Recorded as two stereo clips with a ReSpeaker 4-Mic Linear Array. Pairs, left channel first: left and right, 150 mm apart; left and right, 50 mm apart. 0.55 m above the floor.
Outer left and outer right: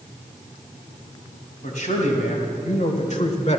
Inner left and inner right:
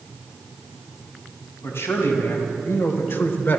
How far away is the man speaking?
About 3.5 m.